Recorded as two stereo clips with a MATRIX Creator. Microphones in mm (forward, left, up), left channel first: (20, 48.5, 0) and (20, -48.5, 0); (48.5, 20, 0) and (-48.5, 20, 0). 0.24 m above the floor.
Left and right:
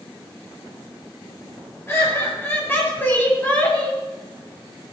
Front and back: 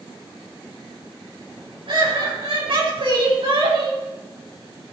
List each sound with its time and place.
1.9 s laughter: 155° left, 5 m; by 4.0 s 165° left, 3.5 m